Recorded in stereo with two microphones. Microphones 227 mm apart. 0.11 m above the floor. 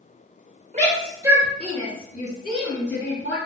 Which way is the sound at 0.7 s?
35° right (ahead or behind).